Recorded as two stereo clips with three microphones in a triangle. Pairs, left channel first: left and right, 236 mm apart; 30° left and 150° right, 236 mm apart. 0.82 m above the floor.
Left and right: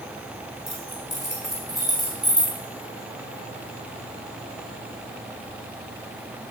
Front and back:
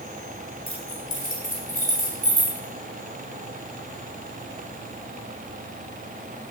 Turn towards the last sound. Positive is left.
turn(degrees=20)